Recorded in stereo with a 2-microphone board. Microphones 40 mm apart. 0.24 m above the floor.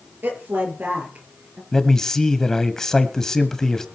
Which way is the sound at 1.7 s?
10° left (ahead or behind).